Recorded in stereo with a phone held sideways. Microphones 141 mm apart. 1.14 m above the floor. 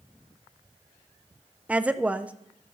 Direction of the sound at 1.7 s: 10° right (ahead or behind).